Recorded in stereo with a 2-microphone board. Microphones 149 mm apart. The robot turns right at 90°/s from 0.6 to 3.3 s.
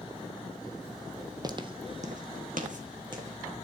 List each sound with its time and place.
1.4 s footsteps: 30° right (ahead or behind), 0.9 m; by 3.6 s 20° right (ahead or behind), 3 m